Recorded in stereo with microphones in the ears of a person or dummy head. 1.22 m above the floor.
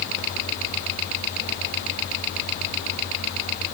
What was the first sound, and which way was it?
Only background noise.